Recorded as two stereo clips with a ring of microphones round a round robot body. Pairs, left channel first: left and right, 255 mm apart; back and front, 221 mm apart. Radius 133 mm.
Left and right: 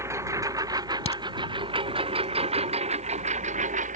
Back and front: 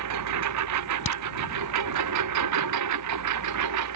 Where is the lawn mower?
10° right; by 4.0 s 25° right.